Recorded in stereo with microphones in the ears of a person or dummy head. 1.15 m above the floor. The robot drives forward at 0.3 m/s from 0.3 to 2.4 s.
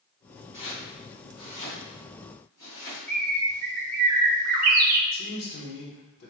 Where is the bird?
40° right (ahead or behind), 0.6 m.